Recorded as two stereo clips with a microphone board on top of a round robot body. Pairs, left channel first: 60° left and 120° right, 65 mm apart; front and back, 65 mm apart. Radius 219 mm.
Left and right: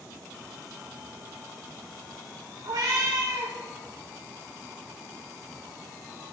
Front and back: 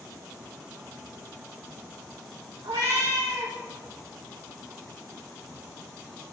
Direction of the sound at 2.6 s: 150° right.